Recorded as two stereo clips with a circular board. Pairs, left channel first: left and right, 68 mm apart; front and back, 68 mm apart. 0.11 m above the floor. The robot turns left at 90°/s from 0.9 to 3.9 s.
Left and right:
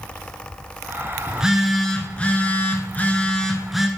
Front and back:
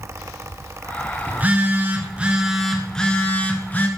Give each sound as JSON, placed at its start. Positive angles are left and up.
{"t": 1.3, "sound": "a phone buzzing", "azimuth_deg": -140, "distance_m": 1.2}